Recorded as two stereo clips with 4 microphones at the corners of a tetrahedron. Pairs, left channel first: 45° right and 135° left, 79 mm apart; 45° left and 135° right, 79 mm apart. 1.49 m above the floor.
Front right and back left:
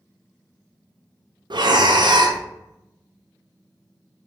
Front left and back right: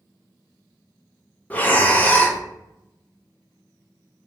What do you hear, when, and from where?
1.5 s breathing: 115° left, 0.5 m